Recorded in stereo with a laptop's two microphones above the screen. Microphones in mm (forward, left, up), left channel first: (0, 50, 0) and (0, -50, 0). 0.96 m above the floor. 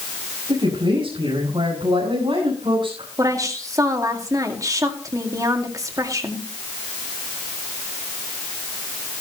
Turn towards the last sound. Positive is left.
turn(degrees=-35)  # may be behind; listen again after turning